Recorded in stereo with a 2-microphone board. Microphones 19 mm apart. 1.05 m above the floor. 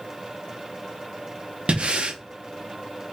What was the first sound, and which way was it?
Breathing, 65° right (ahead or behind).